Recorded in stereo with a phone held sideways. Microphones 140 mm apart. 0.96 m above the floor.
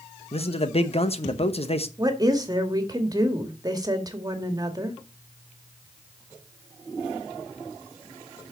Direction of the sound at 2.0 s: 30° right (ahead or behind).